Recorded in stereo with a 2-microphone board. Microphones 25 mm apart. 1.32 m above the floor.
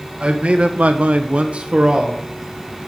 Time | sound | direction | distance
0.2 | a man speaking | 45° right (ahead or behind) | 1.8 m